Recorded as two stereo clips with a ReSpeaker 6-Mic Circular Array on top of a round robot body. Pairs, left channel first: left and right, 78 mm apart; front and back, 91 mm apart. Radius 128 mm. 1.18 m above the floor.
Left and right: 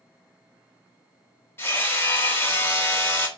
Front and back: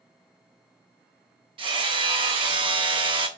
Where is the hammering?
150° left, 1.6 m.